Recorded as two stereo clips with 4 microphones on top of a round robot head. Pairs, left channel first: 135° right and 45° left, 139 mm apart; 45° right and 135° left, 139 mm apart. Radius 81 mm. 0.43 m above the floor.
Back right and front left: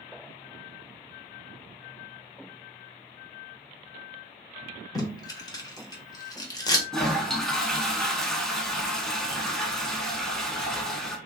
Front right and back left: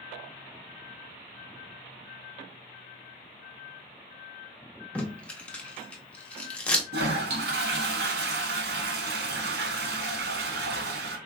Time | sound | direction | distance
5.0 | tape being pulled | 120° right | 1.2 m
6.9 | a toilet flushing | 140° left | 0.7 m